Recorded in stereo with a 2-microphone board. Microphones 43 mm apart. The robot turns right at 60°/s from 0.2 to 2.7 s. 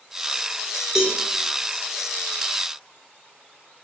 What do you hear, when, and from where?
0.9 s a cowbell: 15° right (ahead or behind), 0.9 m; by 1.2 s 25° right (ahead or behind), 0.9 m